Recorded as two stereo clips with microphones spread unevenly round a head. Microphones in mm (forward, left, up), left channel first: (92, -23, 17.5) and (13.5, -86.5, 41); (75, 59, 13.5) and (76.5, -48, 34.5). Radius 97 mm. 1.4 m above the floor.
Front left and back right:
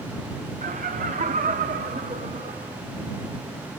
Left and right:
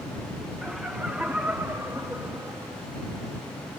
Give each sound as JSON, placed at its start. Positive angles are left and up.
{"t": 0.6, "sound": "laughter", "azimuth_deg": -175}